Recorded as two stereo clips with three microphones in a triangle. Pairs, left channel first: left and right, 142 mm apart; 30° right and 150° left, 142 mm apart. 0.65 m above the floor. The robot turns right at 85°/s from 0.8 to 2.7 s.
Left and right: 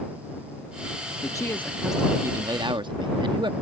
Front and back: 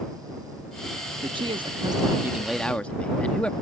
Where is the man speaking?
130° left; by 3.5 s 105° right.